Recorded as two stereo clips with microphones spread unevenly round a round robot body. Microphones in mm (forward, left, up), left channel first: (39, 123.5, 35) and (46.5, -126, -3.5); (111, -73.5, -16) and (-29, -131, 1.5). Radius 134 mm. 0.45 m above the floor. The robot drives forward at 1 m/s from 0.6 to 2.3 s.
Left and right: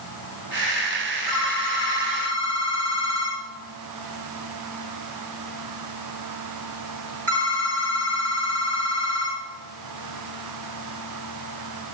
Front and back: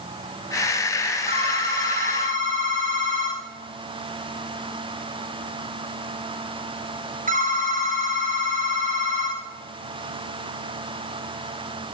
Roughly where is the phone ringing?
Behind right.